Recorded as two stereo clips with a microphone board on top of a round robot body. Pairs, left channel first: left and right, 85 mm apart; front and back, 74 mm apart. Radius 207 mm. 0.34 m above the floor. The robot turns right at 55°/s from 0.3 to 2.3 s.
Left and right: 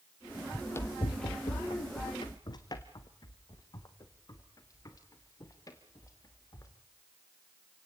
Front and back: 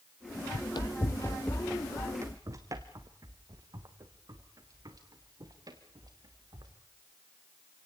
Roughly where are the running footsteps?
Ahead.